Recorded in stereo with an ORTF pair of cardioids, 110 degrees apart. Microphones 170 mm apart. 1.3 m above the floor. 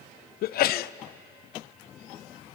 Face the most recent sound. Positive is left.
turn(degrees=60)